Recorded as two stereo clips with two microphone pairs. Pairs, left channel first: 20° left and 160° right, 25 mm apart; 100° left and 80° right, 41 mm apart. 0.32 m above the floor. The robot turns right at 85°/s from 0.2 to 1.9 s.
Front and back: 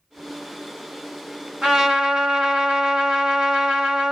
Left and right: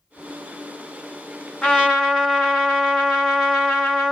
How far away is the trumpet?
About 1.5 m.